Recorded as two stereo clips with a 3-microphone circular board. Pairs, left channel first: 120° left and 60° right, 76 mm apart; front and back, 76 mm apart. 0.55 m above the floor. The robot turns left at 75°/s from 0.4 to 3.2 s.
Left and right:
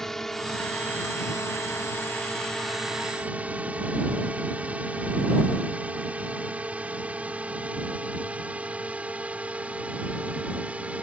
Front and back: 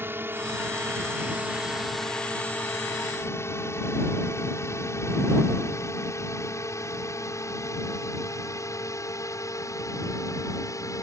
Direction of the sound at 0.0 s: 160° right.